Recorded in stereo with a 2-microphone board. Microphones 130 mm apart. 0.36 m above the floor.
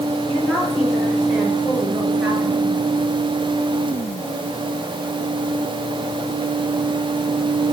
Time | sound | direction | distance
0.3 | a woman speaking | 5° left (ahead or behind) | 6.5 m